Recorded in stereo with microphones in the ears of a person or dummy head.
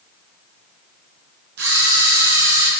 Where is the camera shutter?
60° right (ahead or behind), 1.5 m.